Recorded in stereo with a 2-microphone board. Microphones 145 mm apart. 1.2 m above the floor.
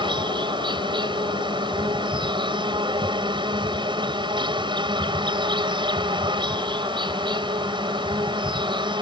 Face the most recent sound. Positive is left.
turn(degrees=-35)  # may be behind; listen again after turning